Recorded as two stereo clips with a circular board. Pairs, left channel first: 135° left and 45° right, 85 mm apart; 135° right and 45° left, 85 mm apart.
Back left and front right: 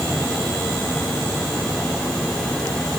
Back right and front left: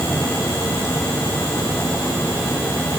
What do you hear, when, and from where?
Only background noise.